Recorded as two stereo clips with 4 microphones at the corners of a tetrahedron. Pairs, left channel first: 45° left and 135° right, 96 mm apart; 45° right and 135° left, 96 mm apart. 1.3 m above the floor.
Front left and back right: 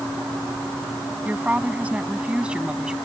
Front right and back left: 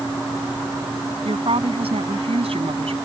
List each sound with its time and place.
1.2 s a woman speaking: 150° left; by 3.0 s 145° left